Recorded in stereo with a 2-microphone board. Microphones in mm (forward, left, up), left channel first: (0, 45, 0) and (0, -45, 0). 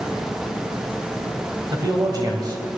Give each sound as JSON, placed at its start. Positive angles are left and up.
{"t": 1.7, "sound": "a man speaking", "side_deg": -50, "distance_m": 2.0}